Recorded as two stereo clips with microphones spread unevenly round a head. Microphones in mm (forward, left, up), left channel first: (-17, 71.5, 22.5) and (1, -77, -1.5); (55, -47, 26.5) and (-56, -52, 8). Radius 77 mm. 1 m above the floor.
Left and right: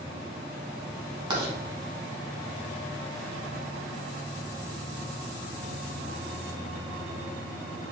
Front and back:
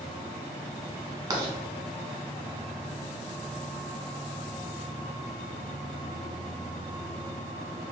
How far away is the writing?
About 1.1 m.